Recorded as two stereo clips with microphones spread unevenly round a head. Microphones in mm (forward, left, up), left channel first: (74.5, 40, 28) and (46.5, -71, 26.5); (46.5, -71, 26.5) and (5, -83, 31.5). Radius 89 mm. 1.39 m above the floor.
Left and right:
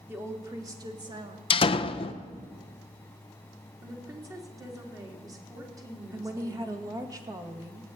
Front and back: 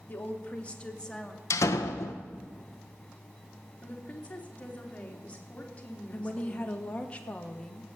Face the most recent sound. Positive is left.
turn(degrees=-45)